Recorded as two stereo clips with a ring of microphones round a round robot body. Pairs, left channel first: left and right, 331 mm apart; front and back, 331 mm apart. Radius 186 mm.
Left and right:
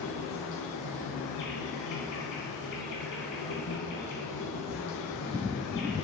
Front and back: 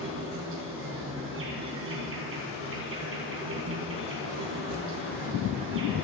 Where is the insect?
130° left, 4 m.